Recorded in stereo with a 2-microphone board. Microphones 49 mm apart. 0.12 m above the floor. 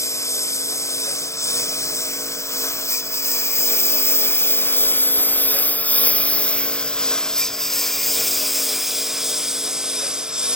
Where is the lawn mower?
85° left; by 10.6 s 15° right (ahead or behind).